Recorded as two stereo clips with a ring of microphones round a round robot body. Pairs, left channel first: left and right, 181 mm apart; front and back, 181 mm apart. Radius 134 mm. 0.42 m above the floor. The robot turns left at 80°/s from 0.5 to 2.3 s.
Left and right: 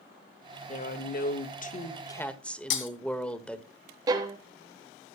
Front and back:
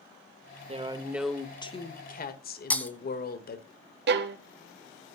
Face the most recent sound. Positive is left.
turn(degrees=-160)